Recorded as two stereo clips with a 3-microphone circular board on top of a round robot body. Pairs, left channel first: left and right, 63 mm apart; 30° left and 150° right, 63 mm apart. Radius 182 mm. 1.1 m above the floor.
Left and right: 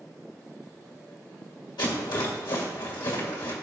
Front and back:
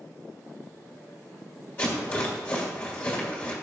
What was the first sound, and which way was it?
A rattle, 85° left.